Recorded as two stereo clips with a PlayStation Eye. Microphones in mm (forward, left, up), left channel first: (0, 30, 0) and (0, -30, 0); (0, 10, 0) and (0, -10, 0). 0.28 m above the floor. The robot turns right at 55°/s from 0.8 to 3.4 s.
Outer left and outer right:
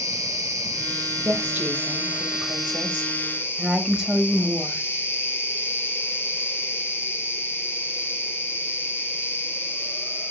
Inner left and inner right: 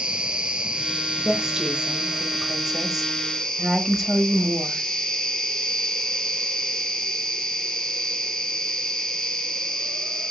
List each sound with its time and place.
0.0 s an insect: 100° right, 0.9 m; by 10.3 s 45° left, 0.9 m
1.2 s a woman speaking: 140° right, 1.0 m; by 4.9 s 20° right, 1.0 m